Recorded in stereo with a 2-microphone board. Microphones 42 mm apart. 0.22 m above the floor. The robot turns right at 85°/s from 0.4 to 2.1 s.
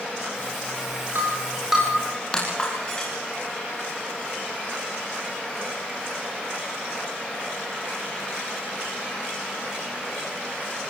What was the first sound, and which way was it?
Breaking glass, 60° right (ahead or behind).